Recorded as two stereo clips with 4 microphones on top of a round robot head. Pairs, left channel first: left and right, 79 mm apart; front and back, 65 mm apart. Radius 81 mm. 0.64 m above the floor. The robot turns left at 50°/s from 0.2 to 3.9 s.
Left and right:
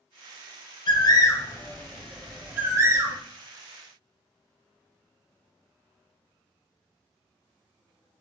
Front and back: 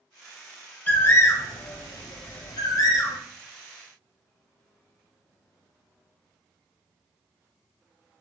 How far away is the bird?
About 0.6 m.